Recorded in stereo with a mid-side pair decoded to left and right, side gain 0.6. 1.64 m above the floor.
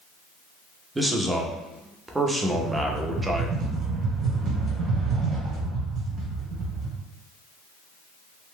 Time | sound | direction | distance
0.9 | a man speaking | 10° right | 0.7 m
2.5 | a rattle | 40° right | 1.3 m